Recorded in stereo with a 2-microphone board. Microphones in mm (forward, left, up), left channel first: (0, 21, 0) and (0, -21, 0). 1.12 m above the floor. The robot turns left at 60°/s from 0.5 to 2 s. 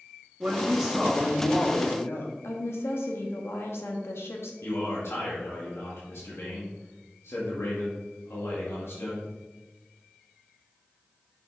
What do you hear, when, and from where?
0.4 s a woman speaking: 150° right, 1.8 m; by 2.3 s 120° left, 1.8 m
2.4 s a woman speaking: 75° left (ahead or behind), 1.6 m
4.6 s a man speaking: 75° left (ahead or behind), 1.9 m